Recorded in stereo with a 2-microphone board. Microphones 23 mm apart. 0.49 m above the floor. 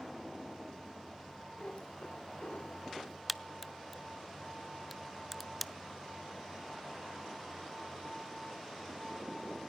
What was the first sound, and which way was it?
A cat meowing, 65° left (ahead or behind).